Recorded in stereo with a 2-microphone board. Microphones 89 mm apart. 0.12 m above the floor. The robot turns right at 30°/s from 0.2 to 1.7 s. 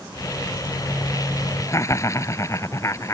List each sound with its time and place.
1.7 s laughter: 35° left (ahead or behind)